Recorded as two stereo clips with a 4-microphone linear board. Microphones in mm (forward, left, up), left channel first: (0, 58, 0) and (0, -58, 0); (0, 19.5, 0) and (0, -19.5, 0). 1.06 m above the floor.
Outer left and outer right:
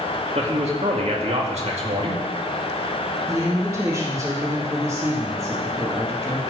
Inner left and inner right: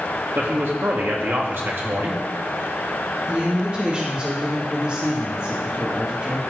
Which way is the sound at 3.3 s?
30° right (ahead or behind).